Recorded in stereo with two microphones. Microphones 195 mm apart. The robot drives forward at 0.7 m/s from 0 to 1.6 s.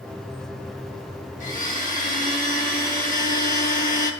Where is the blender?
40° left (ahead or behind), 1.9 m; by 4.1 s 45° left (ahead or behind), 1.8 m.